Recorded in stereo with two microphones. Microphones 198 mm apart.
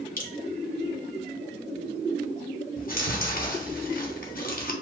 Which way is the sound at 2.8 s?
50° left (ahead or behind).